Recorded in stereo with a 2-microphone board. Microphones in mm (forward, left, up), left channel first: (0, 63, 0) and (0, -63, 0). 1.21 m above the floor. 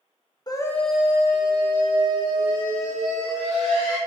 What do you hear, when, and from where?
0.5 s a scream: 30° left (ahead or behind), 0.7 m; by 4.0 s 80° right, 2.5 m